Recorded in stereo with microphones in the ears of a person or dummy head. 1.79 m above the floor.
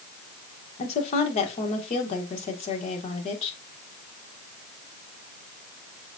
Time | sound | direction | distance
0.8 | a woman speaking | 35° left (ahead or behind) | 1.6 m